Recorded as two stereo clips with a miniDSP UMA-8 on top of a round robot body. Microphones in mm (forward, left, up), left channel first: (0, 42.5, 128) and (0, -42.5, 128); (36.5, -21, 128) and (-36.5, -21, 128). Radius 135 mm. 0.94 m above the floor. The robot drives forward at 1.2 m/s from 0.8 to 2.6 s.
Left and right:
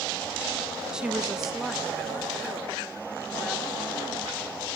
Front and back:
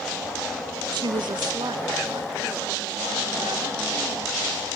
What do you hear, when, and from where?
0.9 s a woman speaking: 170° right, 0.7 m; by 4.7 s straight behind, 2.5 m